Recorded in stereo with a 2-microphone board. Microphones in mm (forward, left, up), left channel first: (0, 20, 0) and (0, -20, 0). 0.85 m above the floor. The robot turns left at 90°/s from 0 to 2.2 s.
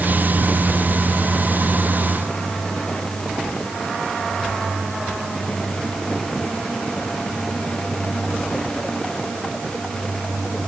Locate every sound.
Only background noise.